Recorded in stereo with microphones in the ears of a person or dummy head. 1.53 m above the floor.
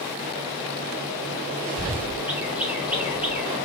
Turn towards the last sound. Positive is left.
turn(degrees=-5)  # may be behind; listen again after turning